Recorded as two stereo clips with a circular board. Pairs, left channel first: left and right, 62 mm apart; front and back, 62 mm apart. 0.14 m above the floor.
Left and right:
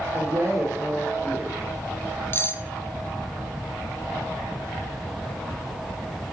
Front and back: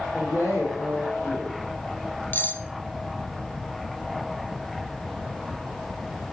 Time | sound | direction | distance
0.1 | a woman speaking | 45° right | 7 m
2.3 | cutlery clinking | 50° left | 1.1 m